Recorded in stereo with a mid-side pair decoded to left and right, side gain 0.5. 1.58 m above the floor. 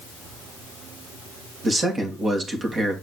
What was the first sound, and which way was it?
A man speaking, 35° right.